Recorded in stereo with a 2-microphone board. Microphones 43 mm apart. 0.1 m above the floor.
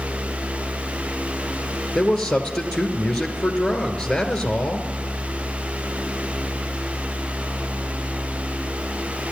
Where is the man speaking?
15° left (ahead or behind), 1.4 m.